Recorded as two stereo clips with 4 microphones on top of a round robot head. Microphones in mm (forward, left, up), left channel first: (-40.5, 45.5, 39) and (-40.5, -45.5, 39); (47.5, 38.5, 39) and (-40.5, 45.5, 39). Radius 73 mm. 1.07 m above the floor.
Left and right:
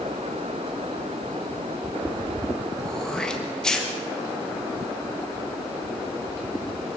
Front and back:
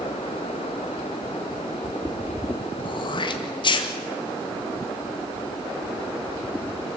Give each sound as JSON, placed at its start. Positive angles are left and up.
{"t": 2.8, "sound": "throat clearing", "azimuth_deg": 5, "distance_m": 1.7}